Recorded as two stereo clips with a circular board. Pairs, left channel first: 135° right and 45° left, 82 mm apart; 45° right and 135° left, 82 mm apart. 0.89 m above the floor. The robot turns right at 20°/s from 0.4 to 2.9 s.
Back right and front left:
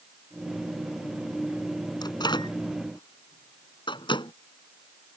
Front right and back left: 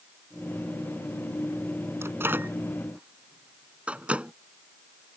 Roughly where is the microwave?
Behind.